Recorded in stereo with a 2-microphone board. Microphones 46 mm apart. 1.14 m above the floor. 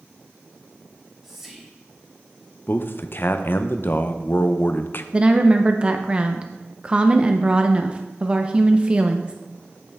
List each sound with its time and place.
0.9 s whispering: 5° right (ahead or behind), 1.8 m
2.7 s a man speaking: 50° left (ahead or behind), 0.5 m
5.1 s a woman speaking: 25° right (ahead or behind), 0.5 m